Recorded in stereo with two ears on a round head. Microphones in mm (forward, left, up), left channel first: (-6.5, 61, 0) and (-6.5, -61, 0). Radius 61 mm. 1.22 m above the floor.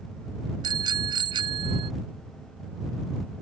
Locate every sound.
0.6 s a bicycle bell: 30° right (ahead or behind); by 1.9 s 40° right (ahead or behind)